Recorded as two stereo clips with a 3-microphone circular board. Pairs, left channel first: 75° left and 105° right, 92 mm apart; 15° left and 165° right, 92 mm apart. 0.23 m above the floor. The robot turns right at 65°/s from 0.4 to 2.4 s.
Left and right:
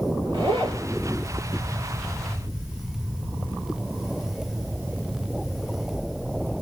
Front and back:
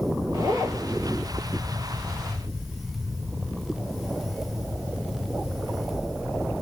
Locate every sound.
0.3 s a zipper: 125° right, 1.5 m; by 0.8 s 100° right, 1.5 m